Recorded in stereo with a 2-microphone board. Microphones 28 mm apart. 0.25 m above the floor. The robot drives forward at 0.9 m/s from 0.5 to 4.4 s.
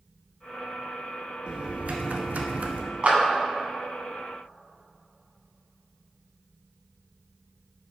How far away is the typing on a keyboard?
About 1.1 m.